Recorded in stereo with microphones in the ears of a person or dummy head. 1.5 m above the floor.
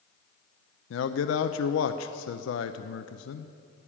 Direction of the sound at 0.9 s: 80° left.